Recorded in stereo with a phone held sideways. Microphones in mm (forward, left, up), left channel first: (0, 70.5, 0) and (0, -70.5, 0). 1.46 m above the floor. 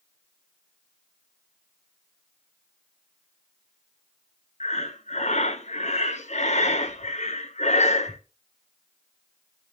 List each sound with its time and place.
4.6 s breathing: 55° left (ahead or behind), 0.7 m